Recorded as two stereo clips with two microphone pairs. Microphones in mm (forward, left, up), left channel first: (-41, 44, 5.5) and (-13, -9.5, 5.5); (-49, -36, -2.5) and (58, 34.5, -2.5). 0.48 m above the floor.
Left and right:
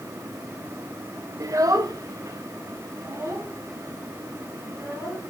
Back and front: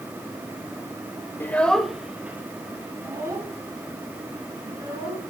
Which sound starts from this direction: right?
A child speaking, at 1.4 s.